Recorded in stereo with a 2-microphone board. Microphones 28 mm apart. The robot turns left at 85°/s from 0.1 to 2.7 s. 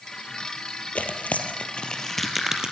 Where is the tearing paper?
65° left (ahead or behind), 3 m; by 2.7 s 35° right (ahead or behind), 3 m.